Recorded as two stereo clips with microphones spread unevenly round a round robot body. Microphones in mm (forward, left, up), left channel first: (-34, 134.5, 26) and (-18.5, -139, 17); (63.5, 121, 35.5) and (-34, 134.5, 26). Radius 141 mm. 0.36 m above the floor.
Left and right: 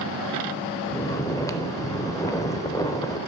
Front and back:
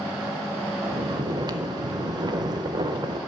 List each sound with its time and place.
0.9 s snoring: 170° left, 0.5 m